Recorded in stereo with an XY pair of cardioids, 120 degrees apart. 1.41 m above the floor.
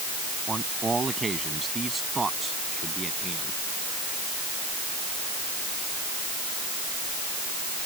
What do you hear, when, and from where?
0.5 s a man speaking: 25° right; by 3.6 s 15° right